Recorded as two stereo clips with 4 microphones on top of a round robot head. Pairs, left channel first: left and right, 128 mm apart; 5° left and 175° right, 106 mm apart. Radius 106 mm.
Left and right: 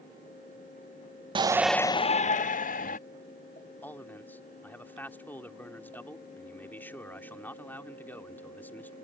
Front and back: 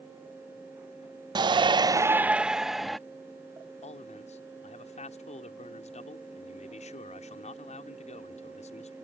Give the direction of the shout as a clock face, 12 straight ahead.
4 o'clock.